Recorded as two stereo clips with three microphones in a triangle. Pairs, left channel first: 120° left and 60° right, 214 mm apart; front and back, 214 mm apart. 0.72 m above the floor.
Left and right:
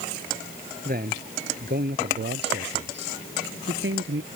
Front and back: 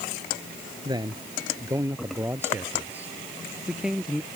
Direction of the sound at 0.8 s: 110° right.